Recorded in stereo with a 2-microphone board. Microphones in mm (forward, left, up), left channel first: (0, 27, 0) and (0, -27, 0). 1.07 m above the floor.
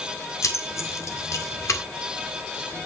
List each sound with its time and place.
0.4 s keys jangling: 60° left (ahead or behind), 1.8 m